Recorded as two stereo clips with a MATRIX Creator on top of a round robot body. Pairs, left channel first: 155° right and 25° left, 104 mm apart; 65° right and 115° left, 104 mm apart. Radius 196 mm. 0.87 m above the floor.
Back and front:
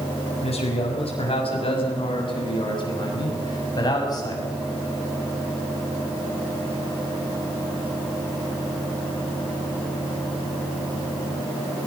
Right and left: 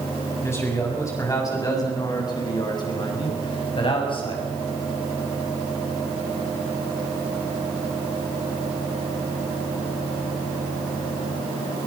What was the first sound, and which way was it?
A man speaking, 135° right.